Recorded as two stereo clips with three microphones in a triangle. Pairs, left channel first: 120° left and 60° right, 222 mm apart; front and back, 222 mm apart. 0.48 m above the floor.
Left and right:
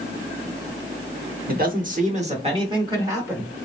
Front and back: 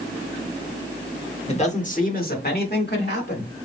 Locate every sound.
1.5 s a man speaking: 50° right, 1.0 m; by 3.5 s 20° left, 1.3 m